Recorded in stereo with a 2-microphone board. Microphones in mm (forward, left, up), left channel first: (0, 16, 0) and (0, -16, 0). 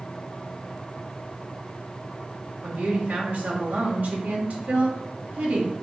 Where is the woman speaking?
80° right, 1.4 m.